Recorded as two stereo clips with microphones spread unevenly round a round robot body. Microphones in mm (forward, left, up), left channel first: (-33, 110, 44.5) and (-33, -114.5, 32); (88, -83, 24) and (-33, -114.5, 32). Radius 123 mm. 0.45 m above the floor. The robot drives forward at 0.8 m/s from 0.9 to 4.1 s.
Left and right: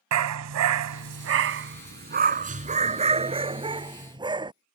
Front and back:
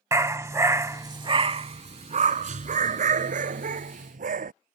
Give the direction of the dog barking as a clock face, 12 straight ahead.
3 o'clock.